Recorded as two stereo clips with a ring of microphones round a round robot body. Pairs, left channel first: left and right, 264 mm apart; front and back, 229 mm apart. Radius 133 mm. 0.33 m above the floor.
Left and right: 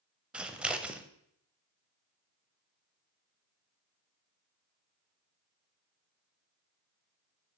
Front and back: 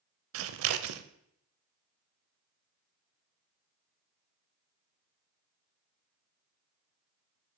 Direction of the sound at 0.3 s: 175° right.